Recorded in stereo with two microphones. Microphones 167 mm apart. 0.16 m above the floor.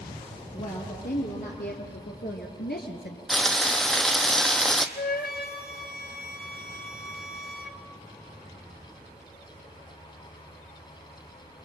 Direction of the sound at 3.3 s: Centre (ahead or behind).